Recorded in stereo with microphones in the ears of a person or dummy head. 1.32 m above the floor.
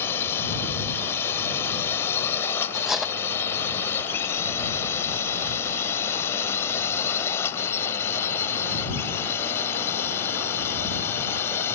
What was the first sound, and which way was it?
A drone, 15° left (ahead or behind).